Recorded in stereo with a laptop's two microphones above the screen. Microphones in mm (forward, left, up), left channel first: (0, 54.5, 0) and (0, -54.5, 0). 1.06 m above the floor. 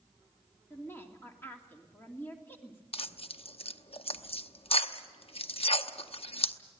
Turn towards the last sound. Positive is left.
turn(degrees=65)  # may be behind; listen again after turning